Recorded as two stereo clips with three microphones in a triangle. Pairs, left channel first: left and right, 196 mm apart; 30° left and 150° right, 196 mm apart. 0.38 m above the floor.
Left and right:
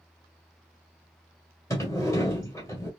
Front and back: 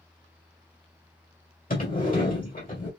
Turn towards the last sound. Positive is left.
turn(degrees=25)